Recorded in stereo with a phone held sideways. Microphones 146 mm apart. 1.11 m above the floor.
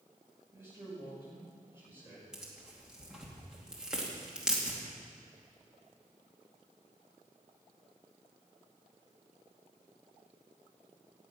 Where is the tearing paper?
5° right (ahead or behind), 2.5 m.